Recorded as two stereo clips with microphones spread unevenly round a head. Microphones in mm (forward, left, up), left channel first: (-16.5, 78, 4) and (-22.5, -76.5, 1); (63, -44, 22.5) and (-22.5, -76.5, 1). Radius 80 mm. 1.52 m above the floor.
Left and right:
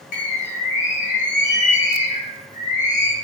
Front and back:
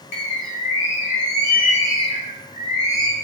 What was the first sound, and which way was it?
A bird, 40° left.